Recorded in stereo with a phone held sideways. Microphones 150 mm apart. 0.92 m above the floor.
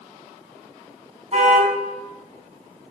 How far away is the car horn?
About 5 m.